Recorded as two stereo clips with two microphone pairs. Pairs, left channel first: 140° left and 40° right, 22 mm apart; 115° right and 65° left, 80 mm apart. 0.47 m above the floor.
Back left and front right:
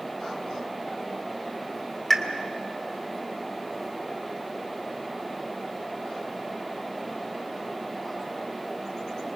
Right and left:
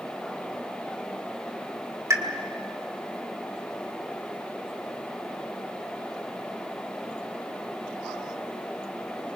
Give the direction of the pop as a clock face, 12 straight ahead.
10 o'clock.